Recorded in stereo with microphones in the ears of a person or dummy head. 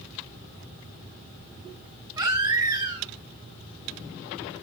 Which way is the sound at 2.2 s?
15° right (ahead or behind).